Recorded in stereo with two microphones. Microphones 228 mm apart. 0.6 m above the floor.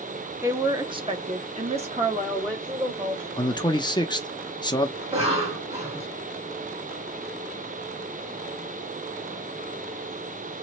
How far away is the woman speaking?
About 0.9 m.